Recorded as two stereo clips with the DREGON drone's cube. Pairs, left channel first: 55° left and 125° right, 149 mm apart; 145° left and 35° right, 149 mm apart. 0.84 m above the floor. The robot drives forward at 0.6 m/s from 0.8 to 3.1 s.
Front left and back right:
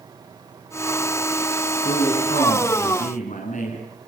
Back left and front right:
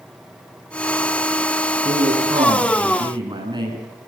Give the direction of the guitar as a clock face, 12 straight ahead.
I don't hear a guitar.